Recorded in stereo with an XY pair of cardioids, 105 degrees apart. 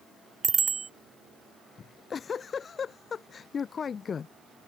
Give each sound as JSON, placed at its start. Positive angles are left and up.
{"t": 0.4, "sound": "a bicycle bell", "azimuth_deg": -35}
{"t": 1.8, "sound": "a giggle", "azimuth_deg": 45}